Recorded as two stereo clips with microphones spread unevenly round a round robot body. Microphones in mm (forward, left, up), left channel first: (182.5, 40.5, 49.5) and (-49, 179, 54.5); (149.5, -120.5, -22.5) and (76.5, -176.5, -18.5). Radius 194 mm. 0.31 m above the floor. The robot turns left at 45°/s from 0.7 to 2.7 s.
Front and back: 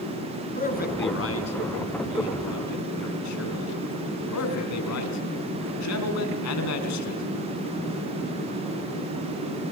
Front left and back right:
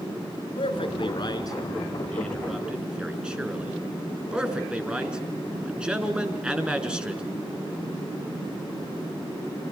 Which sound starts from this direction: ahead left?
A man speaking, at 0.6 s.